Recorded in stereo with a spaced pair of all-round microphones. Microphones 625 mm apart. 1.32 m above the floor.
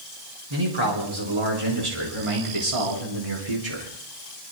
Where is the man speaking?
45° right (ahead or behind), 5 m; by 3.9 s 70° right (ahead or behind), 4 m.